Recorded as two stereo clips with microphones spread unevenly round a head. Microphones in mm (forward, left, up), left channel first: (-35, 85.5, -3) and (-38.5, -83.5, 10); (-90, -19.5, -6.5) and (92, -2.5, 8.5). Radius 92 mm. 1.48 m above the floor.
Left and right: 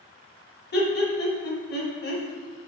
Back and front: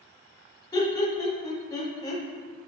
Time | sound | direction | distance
0.7 | laughter | 115° left | 1.6 m